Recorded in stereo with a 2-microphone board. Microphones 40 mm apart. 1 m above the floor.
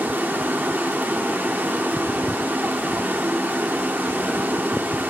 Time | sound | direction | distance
0.0 | running water | 60° right (ahead or behind) | 1.1 m